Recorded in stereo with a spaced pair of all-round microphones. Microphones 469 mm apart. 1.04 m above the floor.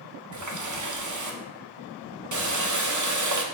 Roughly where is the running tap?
Right.